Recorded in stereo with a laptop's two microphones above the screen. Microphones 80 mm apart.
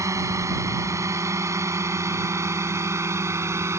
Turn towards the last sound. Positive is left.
turn(degrees=-35)  # may be behind; listen again after turning